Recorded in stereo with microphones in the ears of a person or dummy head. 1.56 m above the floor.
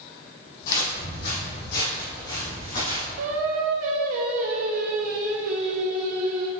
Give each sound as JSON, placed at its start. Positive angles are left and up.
{"t": 0.6, "sound": "footsteps", "side_deg": 50, "distance_m": 2.5}
{"t": 3.2, "sound": "singing", "side_deg": -55, "distance_m": 0.8}